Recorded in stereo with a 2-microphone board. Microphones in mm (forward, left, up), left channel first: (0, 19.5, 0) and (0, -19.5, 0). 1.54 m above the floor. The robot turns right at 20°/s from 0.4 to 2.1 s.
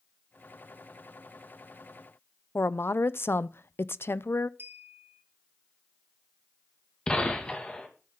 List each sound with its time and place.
2.5 s a woman speaking: 80° left, 0.6 m
4.6 s a clink: 75° right (ahead or behind), 3.5 m
7.1 s a gunshot: 25° left (ahead or behind), 2.5 m